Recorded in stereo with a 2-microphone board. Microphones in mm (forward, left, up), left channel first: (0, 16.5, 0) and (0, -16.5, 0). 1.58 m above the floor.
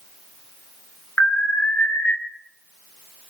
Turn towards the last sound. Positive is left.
turn(degrees=75)  # may be behind; listen again after turning